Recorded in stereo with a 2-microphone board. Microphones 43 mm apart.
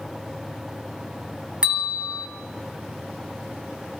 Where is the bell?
20° right (ahead or behind), 1.7 m.